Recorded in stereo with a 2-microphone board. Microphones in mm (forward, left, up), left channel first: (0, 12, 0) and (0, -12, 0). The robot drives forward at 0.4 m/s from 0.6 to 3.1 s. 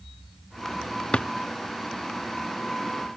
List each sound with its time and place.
1.1 s a drawer: 55° left (ahead or behind)